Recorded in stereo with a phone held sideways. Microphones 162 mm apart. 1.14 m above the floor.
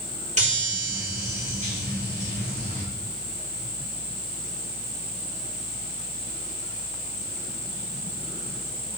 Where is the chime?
45° right (ahead or behind), 4.5 m.